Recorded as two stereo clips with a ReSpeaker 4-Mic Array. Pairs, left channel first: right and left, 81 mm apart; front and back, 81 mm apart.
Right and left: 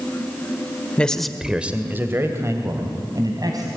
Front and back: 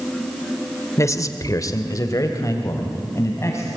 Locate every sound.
1.0 s a man speaking: 20° right, 1.5 m; by 3.7 s 50° left, 3.5 m